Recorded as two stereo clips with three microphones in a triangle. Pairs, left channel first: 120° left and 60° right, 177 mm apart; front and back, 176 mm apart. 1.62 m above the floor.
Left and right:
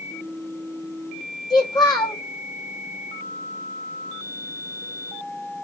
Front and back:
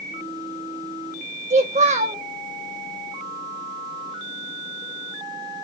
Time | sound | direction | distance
1.5 | a child speaking | 175° left | 0.9 m